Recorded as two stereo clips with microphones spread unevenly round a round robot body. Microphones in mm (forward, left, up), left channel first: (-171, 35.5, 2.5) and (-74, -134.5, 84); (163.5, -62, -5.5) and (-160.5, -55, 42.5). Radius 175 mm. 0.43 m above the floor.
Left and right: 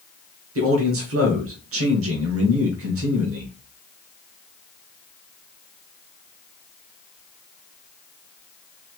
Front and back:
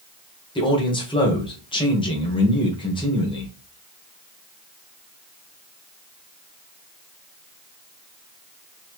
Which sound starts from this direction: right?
A man speaking, at 0.6 s.